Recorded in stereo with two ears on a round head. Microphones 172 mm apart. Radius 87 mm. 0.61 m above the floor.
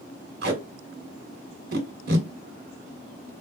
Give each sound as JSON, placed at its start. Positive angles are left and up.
{"t": 0.4, "sound": "tape being pulled", "side_deg": -55, "distance_m": 1.4}